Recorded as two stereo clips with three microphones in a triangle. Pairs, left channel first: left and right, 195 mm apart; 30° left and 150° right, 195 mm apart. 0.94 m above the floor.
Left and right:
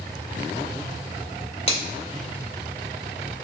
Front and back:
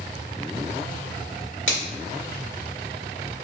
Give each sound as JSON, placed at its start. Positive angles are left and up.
{"t": 1.7, "sound": "a finger snap", "azimuth_deg": 35, "distance_m": 2.0}